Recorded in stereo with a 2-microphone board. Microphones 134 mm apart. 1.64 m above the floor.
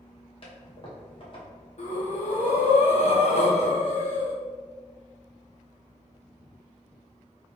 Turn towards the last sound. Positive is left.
turn(degrees=55)  # may be behind; listen again after turning